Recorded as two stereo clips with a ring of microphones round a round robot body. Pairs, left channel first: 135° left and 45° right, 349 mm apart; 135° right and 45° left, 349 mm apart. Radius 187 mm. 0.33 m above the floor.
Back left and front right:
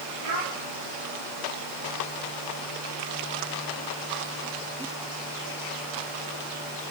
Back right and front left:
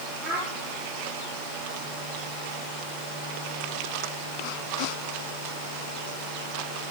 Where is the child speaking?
45° right, 6.5 m.